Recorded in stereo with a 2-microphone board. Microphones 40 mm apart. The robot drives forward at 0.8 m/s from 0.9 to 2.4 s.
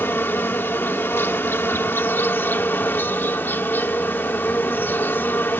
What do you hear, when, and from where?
0.0 s an insect: 80° left; by 5.6 s 70° left (ahead or behind)